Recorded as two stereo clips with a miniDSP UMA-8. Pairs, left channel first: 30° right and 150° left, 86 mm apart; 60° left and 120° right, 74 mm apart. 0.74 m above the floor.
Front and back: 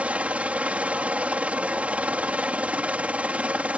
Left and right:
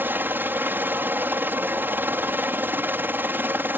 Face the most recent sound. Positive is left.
turn(degrees=-150)